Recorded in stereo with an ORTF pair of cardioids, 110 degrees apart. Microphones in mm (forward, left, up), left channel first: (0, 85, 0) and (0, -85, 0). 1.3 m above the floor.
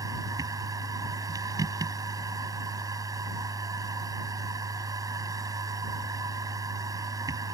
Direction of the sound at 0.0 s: 20° right.